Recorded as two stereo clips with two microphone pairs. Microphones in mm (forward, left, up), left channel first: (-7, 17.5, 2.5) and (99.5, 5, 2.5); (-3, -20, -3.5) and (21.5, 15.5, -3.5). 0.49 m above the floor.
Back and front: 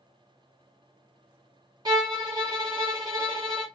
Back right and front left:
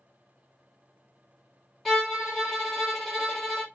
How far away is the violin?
About 1.1 m.